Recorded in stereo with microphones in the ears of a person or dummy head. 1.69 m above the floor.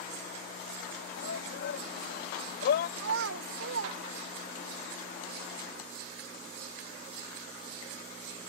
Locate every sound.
1.2 s a shout: 70° left (ahead or behind); by 2.9 s 55° left (ahead or behind)
3.0 s a child speaking: 70° right (ahead or behind)